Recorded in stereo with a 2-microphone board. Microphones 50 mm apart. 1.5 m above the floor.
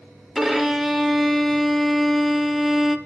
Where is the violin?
Centre (ahead or behind), 0.7 m.